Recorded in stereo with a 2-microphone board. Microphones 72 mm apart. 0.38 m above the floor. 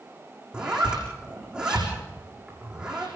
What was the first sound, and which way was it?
A zipper, 10° right (ahead or behind).